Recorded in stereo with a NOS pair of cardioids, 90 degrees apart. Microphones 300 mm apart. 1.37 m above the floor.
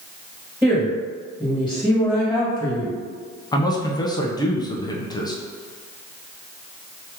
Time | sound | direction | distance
0.6 | a woman speaking | straight ahead | 1.9 m
3.5 | a man speaking | 15° left | 0.9 m